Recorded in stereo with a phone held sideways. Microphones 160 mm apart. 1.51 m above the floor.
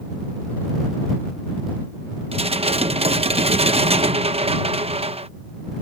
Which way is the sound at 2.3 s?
40° right (ahead or behind).